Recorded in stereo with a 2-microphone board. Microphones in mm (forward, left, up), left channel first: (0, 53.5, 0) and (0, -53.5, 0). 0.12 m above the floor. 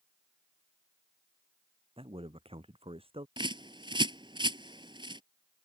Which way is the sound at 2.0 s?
60° right (ahead or behind).